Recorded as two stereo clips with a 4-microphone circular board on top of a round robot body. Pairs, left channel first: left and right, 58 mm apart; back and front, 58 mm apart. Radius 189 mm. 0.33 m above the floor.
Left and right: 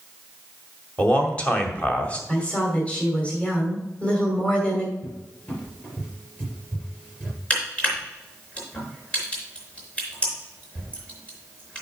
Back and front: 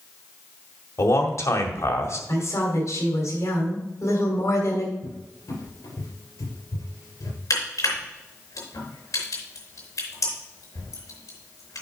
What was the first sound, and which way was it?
A man speaking, 155° left.